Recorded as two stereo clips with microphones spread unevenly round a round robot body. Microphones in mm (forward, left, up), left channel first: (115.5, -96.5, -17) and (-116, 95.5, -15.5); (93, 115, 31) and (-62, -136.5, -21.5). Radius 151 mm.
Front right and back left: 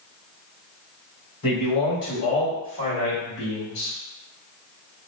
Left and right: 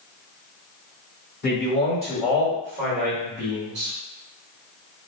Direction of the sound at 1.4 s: Straight ahead.